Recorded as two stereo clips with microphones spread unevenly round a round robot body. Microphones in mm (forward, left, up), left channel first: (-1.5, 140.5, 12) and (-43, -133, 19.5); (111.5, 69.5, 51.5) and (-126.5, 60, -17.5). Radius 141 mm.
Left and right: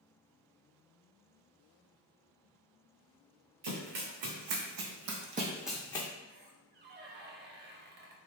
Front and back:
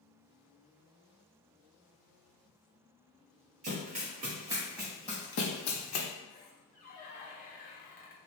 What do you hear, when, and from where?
3.6 s running footsteps: 110° right, 1.8 m; by 6.1 s 10° left, 1.0 m
6.3 s a squeak: 65° right, 0.6 m